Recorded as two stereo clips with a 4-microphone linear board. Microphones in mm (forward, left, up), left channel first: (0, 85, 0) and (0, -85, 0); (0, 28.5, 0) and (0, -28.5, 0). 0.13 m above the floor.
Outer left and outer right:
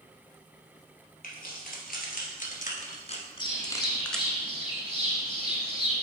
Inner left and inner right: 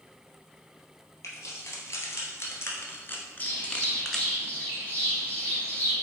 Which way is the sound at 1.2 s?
60° left (ahead or behind).